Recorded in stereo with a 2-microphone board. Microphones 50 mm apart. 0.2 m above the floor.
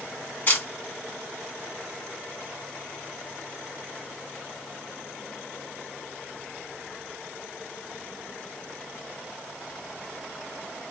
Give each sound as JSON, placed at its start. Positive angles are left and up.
{"t": 0.5, "sound": "a camera shutter", "side_deg": 40, "distance_m": 2.0}